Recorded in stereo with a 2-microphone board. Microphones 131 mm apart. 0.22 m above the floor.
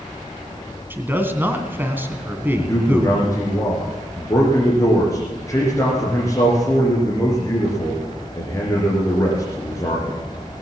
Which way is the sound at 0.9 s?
15° right (ahead or behind).